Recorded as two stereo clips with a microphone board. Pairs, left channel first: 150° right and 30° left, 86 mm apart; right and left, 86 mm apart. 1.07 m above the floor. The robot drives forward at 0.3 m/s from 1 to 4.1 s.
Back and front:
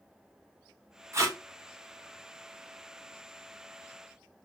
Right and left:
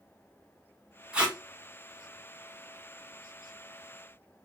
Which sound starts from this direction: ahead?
Tape being pulled, at 1.1 s.